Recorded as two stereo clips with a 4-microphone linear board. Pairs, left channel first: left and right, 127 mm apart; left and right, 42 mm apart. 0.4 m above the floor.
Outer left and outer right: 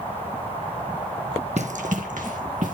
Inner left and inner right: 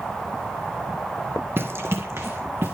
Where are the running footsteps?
60° right (ahead or behind), 0.8 m; by 2.8 s 70° right (ahead or behind), 2 m.